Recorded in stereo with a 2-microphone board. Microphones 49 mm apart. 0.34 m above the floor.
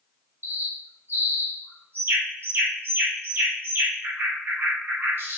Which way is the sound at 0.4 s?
50° right (ahead or behind).